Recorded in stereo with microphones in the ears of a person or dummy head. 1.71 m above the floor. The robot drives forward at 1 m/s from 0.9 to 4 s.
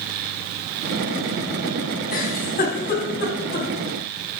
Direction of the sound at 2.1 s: 50° left (ahead or behind).